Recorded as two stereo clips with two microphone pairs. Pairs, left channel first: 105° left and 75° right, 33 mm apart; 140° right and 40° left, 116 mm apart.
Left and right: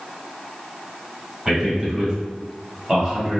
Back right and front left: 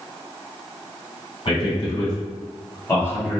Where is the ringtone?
No ringtone in this recording.